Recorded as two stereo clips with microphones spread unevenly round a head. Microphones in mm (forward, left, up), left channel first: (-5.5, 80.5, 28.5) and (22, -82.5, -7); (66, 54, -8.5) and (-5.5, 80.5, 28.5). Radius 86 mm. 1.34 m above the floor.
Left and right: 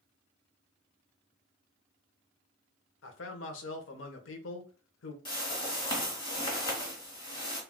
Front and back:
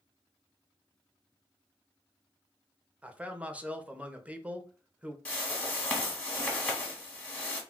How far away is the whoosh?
About 1.3 m.